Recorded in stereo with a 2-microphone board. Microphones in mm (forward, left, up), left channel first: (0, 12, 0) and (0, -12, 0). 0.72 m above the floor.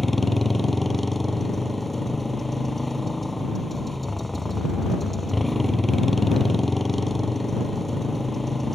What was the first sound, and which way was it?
A motorcycle, 5° left (ahead or behind).